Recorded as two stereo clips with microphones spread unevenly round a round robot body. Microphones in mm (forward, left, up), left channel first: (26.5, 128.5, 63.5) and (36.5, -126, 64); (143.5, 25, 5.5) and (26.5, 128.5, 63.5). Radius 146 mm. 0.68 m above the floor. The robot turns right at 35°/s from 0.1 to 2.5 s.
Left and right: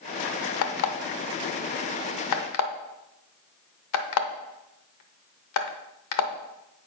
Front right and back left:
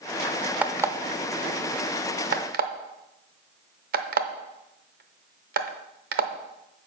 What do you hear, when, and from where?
0.6 s an alarm clock: 60° left, 0.8 m; by 6.9 s 125° left, 0.8 m